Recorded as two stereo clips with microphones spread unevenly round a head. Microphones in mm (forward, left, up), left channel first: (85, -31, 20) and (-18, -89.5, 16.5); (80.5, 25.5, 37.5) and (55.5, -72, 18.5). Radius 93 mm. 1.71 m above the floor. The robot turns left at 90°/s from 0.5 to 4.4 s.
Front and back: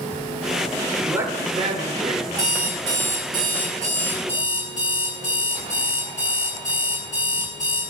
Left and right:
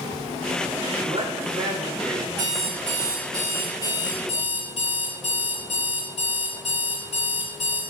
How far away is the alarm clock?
About 4 m.